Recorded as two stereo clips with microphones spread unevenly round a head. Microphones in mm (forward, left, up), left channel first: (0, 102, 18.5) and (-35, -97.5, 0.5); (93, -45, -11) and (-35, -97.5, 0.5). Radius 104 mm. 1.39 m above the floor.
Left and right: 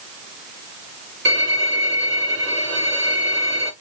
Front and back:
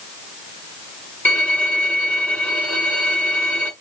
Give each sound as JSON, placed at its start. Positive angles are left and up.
{"t": 1.2, "sound": "a violin", "azimuth_deg": -60, "distance_m": 2.0}